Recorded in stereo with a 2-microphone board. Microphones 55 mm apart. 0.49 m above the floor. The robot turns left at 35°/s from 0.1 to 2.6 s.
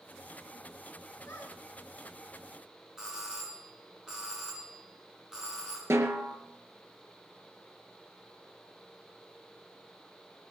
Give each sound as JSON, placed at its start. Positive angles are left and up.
{"t": 1.3, "sound": "a squeak", "side_deg": 65, "distance_m": 5.0}
{"t": 3.0, "sound": "a doorbell", "side_deg": -10, "distance_m": 6.5}
{"t": 5.9, "sound": "a snare drum", "side_deg": -60, "distance_m": 2.5}